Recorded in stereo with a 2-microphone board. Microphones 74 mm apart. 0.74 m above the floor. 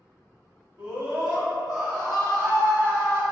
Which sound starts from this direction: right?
A scream, at 0.8 s.